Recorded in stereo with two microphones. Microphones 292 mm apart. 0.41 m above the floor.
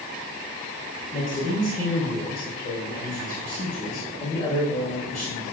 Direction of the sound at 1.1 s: 30° left (ahead or behind).